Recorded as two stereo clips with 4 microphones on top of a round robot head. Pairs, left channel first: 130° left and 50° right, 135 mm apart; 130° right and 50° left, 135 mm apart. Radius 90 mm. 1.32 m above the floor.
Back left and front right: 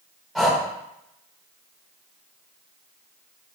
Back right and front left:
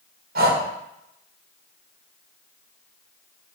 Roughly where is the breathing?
Ahead left.